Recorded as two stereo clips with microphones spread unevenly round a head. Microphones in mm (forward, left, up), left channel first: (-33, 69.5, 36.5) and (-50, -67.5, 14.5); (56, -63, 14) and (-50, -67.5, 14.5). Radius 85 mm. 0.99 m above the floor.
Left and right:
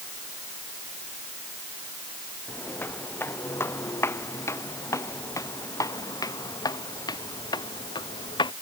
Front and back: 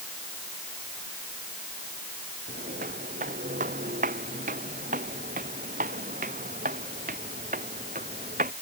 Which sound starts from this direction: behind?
Footsteps, at 2.5 s.